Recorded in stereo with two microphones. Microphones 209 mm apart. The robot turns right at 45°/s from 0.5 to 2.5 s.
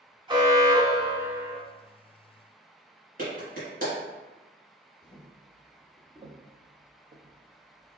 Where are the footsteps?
15° left (ahead or behind), 1.2 m; by 8.0 s 80° right, 1.5 m.